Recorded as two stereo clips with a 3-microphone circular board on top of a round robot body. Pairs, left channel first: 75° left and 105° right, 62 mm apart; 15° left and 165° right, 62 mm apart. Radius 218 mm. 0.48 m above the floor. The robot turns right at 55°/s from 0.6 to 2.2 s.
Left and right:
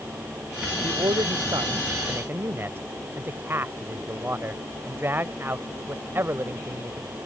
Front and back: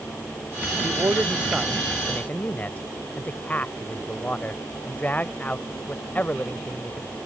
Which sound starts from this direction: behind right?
A man speaking, at 0.8 s.